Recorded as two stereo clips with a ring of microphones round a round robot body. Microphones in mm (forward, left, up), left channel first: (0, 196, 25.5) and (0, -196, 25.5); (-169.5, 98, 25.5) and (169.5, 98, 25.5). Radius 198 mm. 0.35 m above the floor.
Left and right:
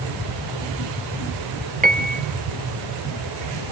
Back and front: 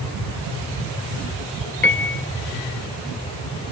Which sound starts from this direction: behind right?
A piano, at 1.8 s.